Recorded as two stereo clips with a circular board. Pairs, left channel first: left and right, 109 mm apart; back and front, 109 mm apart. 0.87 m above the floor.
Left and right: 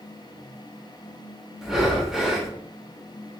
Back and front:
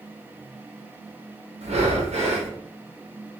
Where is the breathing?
5° right, 0.6 m.